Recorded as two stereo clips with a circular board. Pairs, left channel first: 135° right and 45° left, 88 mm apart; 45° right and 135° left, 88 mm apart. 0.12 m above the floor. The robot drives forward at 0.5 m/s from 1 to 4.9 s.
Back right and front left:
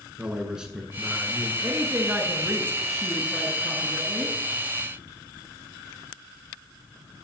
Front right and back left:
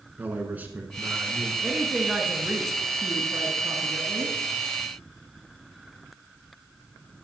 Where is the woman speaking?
40° left, 1.2 m; by 4.4 s 160° left, 1.5 m.